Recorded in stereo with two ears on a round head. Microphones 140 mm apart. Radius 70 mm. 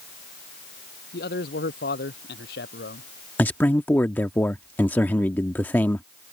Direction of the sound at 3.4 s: 10° left (ahead or behind).